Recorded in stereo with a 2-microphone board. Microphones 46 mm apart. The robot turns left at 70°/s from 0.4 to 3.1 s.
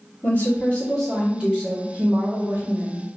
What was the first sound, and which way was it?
A woman speaking, 50° left.